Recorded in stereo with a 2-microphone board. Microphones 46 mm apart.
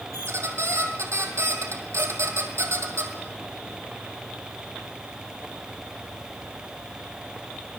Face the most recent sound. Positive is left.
turn(degrees=-85)